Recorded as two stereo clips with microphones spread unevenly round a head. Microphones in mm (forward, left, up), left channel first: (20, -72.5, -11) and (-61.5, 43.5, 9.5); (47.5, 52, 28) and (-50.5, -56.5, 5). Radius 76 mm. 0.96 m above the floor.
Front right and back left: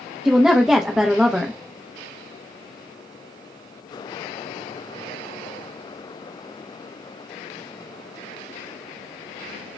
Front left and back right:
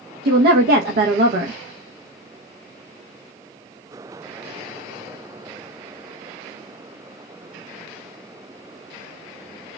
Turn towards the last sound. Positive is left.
turn(degrees=-145)